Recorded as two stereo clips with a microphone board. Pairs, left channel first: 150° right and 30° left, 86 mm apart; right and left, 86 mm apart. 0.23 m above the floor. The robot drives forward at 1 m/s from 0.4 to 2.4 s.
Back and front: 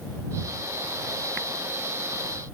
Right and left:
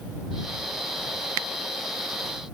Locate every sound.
Only background noise.